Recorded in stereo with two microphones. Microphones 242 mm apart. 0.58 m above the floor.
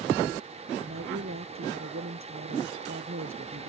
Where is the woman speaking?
60° right (ahead or behind).